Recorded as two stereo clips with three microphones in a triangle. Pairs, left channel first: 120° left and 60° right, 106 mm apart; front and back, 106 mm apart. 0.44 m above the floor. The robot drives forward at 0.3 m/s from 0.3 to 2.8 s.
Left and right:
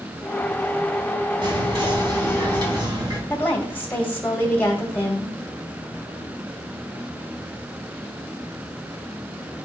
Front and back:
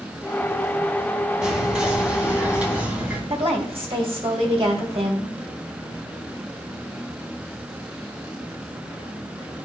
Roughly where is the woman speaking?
Behind.